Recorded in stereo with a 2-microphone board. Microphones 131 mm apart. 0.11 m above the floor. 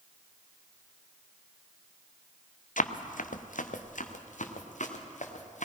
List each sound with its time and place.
2.8 s running footsteps: 85° left, 1.0 m; by 5.7 s 65° left (ahead or behind), 3 m